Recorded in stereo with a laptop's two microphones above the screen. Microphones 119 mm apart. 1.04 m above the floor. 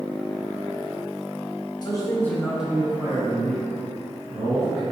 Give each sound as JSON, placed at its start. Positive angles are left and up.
{"t": 1.8, "sound": "a man speaking", "side_deg": 35, "distance_m": 0.8}